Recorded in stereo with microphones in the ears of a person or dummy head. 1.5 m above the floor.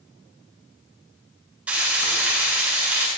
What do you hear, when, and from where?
1.7 s frying: 10° right (ahead or behind), 9 m